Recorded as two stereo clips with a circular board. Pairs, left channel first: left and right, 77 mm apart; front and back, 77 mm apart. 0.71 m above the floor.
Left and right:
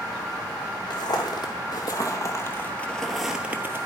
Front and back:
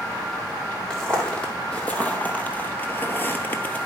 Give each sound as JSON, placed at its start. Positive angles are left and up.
{"t": 0.9, "sound": "footsteps", "azimuth_deg": 80, "distance_m": 1.7}